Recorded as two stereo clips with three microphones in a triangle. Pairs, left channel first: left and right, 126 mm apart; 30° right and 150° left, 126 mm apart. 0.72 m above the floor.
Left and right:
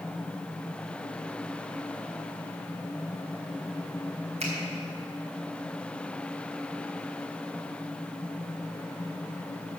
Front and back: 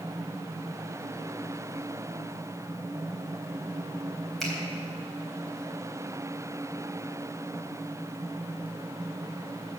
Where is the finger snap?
120° right, 3.5 m.